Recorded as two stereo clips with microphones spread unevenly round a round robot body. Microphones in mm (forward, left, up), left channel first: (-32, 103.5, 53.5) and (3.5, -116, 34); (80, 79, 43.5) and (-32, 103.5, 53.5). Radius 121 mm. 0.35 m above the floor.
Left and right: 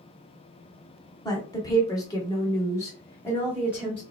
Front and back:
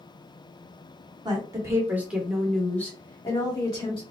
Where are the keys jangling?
No keys jangling in this recording.